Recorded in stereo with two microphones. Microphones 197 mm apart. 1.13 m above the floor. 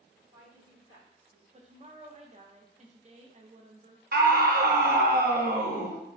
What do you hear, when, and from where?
0.2 s a woman speaking: 50° right (ahead or behind), 1.7 m; by 1.4 s 70° right (ahead or behind), 1.7 m
1.5 s a woman speaking: 35° right (ahead or behind), 0.5 m
4.1 s a scream: 50° right (ahead or behind), 0.7 m